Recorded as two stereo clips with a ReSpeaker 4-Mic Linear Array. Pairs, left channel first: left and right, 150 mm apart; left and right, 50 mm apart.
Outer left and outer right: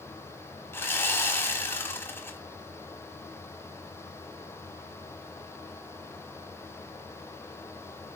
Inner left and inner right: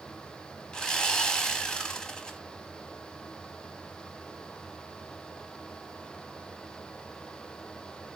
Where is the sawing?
15° left (ahead or behind), 1.1 m.